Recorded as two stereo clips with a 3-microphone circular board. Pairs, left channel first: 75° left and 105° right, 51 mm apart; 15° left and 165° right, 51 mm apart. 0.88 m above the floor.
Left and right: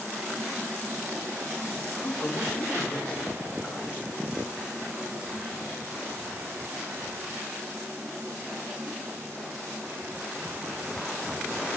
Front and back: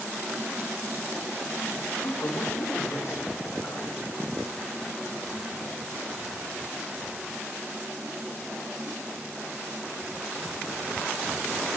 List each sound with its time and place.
2.0 s a man speaking: 30° left, 2 m; by 4.0 s 20° left, 4 m